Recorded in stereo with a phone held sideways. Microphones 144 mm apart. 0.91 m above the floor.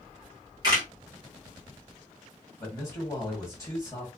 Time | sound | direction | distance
0.6 | a camera shutter | 25° right (ahead or behind) | 1.8 m
2.6 | a man speaking | 20° left (ahead or behind) | 1.4 m